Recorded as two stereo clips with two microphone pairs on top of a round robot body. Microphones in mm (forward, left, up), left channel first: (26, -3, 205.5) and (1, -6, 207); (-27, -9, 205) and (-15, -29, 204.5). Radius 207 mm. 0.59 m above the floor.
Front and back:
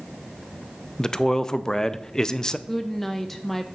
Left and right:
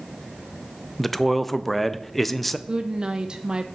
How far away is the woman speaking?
About 0.7 m.